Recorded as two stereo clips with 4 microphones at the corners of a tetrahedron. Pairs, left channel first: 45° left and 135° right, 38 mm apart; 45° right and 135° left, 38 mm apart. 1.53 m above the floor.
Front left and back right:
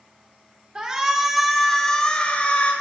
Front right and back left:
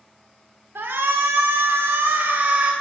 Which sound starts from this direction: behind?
A shout, at 0.8 s.